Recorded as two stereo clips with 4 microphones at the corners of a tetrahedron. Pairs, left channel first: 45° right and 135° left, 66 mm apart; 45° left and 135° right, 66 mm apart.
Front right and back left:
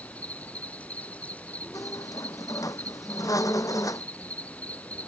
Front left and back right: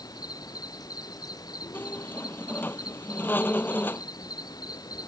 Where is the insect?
25° left.